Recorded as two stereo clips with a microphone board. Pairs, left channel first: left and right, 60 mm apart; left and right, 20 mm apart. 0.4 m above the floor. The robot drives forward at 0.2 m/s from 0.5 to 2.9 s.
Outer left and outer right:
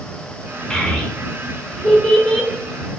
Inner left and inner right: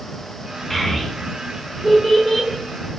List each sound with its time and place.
0.7 s a child speaking: 10° left (ahead or behind), 0.6 m